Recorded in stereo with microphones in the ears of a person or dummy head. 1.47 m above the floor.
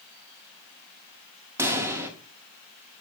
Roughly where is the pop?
Centre.